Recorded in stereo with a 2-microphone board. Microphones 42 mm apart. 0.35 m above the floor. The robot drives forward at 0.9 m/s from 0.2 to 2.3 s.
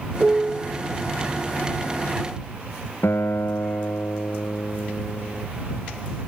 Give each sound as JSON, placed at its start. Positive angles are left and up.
{"t": 0.2, "sound": "a piano", "side_deg": -30}
{"t": 3.0, "sound": "a guitar", "side_deg": 80}